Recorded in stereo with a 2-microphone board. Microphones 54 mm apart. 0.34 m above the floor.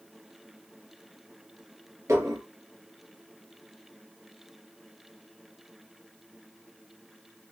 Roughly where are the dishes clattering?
Right.